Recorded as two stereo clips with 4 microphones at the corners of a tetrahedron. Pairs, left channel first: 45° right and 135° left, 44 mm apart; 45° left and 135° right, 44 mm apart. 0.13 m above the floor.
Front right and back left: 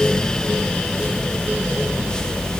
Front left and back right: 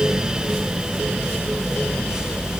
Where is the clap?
No clap in this recording.